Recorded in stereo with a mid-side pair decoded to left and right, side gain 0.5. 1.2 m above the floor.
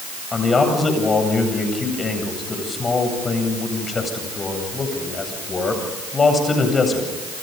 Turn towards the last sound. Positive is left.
turn(degrees=30)